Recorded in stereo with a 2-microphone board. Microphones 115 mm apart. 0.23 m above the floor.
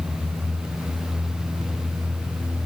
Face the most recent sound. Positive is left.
No sound to turn to.